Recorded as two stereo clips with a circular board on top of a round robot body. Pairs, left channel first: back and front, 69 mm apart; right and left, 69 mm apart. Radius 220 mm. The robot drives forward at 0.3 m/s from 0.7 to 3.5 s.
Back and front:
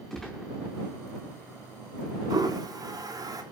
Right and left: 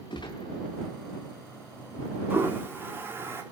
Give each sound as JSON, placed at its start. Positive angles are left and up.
{"t": 0.1, "sound": "a gunshot", "azimuth_deg": -95, "distance_m": 0.6}
{"t": 2.3, "sound": "a toilet flushing", "azimuth_deg": 30, "distance_m": 4.0}